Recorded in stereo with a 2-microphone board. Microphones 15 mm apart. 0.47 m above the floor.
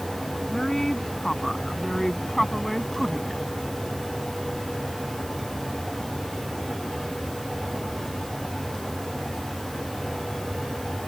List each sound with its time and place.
0.5 s a woman speaking: 40° left (ahead or behind); by 3.4 s 10° left (ahead or behind)